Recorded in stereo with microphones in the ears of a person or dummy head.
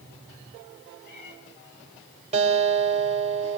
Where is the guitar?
35° right (ahead or behind), 4.5 m.